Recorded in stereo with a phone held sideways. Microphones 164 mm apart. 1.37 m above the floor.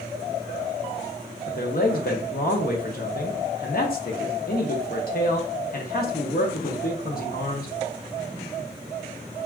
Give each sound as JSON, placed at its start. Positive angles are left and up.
{"t": 1.5, "sound": "a man speaking", "side_deg": 60, "distance_m": 0.6}